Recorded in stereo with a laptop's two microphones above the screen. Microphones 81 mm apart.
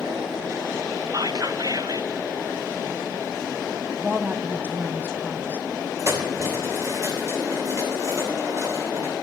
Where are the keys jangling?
40° right (ahead or behind), 3 m.